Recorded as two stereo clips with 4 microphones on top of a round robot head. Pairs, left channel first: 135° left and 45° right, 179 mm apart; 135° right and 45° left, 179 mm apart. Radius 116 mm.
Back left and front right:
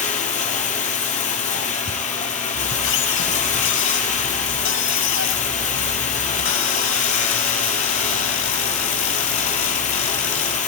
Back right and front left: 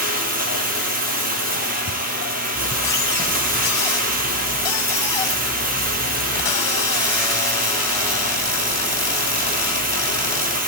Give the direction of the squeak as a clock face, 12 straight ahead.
7 o'clock.